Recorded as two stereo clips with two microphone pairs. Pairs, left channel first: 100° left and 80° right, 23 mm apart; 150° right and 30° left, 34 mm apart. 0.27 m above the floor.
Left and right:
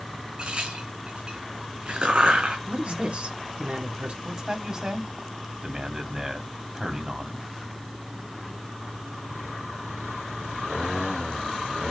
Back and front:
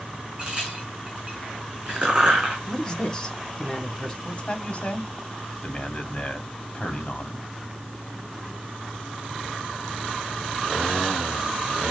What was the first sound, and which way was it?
A crack, 35° right.